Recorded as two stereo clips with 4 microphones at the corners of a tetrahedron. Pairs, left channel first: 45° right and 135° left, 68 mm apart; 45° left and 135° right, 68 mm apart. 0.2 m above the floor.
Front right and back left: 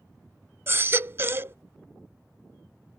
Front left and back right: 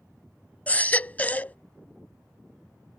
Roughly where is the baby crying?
Left.